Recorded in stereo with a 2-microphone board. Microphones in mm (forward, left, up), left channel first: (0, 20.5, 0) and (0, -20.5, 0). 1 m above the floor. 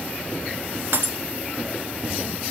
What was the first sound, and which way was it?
Breaking glass, 70° right (ahead or behind).